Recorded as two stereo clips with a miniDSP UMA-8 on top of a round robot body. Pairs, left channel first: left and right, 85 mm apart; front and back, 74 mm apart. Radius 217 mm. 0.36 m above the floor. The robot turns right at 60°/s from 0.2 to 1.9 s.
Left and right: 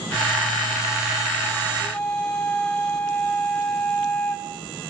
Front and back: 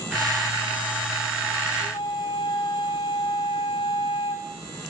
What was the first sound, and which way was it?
A flute, 10° left.